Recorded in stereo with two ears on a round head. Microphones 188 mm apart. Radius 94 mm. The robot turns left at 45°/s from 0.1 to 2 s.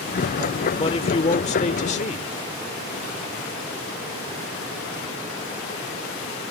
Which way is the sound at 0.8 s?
135° left.